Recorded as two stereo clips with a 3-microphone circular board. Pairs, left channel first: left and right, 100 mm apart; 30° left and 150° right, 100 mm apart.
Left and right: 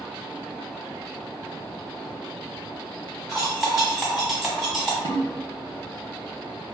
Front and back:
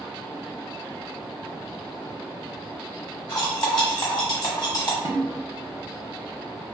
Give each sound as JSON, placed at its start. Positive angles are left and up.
{"t": 3.3, "sound": "cutlery clinking", "azimuth_deg": -5, "distance_m": 1.2}
{"t": 5.0, "sound": "a snare drum", "azimuth_deg": -95, "distance_m": 0.6}